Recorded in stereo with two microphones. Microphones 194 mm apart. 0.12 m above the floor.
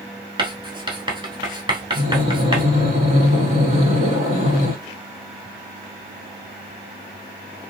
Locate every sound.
0.4 s writing: 25° right (ahead or behind), 1.2 m
1.9 s breathing: 40° right (ahead or behind), 3 m